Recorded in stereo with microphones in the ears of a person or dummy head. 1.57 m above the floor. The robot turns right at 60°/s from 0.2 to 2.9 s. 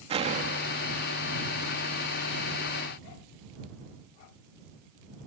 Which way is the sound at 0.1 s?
150° right.